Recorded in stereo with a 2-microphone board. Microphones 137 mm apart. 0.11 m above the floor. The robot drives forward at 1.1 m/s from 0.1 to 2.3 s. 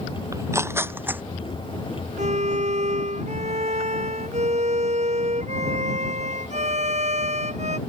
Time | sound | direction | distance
0.3 | tearing paper | 25° right (ahead or behind) | ?
2.2 | a violin | 60° right (ahead or behind) | ?